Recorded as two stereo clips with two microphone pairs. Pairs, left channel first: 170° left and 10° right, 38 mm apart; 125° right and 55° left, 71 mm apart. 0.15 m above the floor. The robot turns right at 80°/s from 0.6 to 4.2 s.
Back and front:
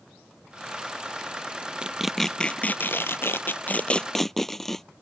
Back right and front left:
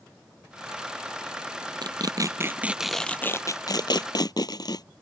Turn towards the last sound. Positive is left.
turn(degrees=-110)